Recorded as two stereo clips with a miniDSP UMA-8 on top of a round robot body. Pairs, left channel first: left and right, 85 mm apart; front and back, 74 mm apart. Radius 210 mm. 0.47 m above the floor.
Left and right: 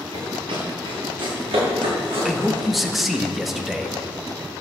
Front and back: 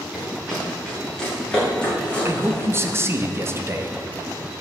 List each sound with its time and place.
0.1 s running footsteps: 90° right, 3.5 m; by 2.7 s 70° right, 5.5 m
2.2 s a man speaking: 175° right, 1.4 m